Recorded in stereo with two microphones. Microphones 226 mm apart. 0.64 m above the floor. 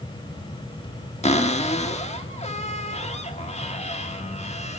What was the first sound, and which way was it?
A cupboard door, 30° left (ahead or behind).